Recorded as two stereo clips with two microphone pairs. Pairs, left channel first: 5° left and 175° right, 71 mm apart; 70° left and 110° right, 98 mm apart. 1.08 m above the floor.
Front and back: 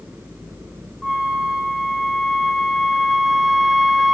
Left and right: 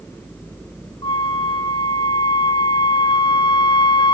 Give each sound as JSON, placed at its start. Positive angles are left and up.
{"t": 1.0, "sound": "a flute", "azimuth_deg": 95, "distance_m": 1.9}